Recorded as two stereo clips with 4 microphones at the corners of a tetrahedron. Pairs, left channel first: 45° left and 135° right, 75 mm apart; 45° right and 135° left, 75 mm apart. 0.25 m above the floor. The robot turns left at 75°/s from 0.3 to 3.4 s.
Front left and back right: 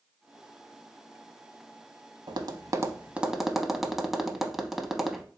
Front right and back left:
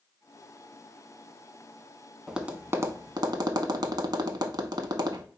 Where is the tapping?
135° right, 0.6 m; by 5.2 s 140° left, 0.6 m.